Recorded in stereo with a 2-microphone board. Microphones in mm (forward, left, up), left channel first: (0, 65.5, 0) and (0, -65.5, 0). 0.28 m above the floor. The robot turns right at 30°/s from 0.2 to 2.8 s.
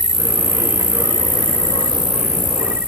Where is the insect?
100° right; by 2.9 s 20° right.